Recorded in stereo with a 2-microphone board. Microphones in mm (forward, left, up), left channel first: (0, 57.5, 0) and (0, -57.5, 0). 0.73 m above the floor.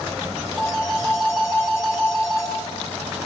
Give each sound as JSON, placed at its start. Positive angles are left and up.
{"t": 0.6, "sound": "a phone ringing", "side_deg": 0, "distance_m": 5.0}